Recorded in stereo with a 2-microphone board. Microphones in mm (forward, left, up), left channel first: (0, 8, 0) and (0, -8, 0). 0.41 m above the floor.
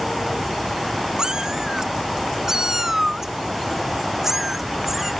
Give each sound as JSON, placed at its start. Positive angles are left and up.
{"t": 1.2, "sound": "a cat meowing", "side_deg": -45}